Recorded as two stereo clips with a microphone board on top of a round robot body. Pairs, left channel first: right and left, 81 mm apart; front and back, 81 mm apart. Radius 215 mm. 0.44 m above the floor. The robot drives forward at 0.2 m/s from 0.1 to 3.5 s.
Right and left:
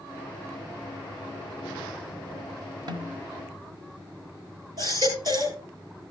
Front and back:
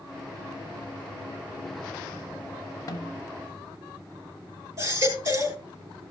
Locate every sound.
2.9 s a snare drum: 55° left, 0.5 m; by 3.3 s 60° left, 0.5 m
4.8 s a baby crying: 130° left, 4 m